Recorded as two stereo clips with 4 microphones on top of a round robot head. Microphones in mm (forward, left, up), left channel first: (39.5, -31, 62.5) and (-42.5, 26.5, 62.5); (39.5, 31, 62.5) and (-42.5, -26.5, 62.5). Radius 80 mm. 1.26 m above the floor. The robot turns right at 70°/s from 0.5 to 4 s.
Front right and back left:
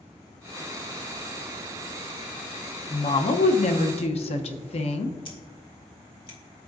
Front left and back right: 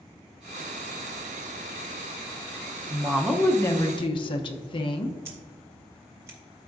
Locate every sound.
2.9 s a woman speaking: 85° right, 0.8 m; by 5.2 s 5° right, 0.8 m
5.2 s scissors: 80° right, 1.5 m